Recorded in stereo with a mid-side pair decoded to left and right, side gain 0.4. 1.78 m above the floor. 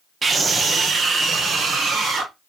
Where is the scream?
40° right, 1.1 m; by 2.3 s 60° right, 2.5 m.